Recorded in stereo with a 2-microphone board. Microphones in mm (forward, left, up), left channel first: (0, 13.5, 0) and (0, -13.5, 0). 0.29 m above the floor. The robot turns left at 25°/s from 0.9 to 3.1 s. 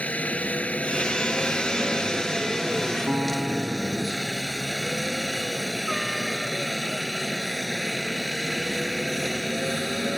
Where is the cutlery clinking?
No cutlery clinking in this recording.